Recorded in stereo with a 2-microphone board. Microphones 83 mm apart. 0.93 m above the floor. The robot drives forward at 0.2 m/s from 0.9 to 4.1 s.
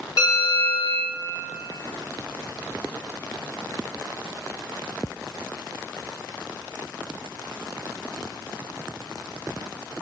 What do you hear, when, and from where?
0.2 s a bell: 65° left (ahead or behind), 1.8 m; by 1.1 s 70° left (ahead or behind), 1.7 m